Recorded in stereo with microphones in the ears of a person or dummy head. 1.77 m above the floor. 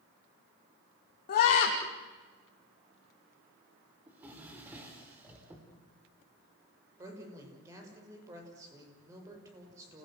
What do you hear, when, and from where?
1.3 s a scream: 50° left (ahead or behind), 2.5 m
4.1 s a drawer: 15° right (ahead or behind), 4 m
7.0 s a woman speaking: 20° right (ahead or behind), 6.5 m